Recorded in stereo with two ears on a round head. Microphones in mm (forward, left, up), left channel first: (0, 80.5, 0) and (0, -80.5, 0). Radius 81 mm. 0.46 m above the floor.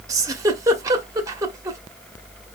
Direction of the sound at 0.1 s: 20° right (ahead or behind).